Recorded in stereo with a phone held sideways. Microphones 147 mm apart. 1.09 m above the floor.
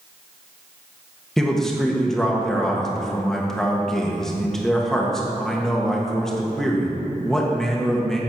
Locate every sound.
1.4 s a man speaking: 5° left (ahead or behind), 1.3 m